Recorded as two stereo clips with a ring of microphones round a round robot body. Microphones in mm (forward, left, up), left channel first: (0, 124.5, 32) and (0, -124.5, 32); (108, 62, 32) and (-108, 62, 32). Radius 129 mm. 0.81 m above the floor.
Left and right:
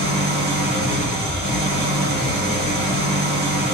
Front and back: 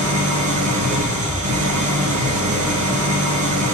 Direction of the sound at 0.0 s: 145° right.